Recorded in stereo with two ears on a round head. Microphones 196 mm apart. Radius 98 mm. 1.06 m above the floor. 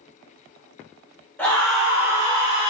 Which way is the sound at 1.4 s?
10° left (ahead or behind).